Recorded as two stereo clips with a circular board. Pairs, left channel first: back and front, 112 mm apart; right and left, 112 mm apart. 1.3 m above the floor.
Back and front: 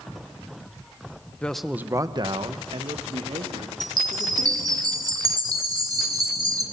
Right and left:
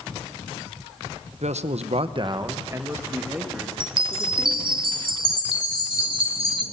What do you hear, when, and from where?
1.4 s a man speaking: 105° left, 1.0 m; by 4.8 s 5° left, 4 m
3.8 s a chime: 55° left, 2 m